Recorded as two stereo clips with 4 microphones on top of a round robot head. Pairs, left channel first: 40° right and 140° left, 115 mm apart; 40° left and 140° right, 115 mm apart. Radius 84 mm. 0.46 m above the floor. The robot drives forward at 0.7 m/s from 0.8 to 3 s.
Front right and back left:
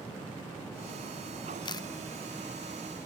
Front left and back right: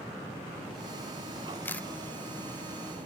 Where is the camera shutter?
25° right, 0.7 m; by 1.9 s 35° right, 0.6 m.